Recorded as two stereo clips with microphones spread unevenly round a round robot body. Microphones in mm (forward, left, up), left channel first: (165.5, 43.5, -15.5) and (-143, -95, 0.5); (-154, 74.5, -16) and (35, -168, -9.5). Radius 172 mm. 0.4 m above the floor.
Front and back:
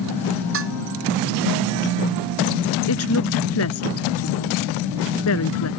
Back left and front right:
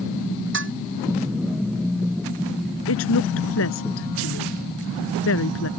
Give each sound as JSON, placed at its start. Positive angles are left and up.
{"t": 0.5, "sound": "dishes clattering", "azimuth_deg": -105}
{"t": 2.9, "sound": "a woman speaking", "azimuth_deg": 75}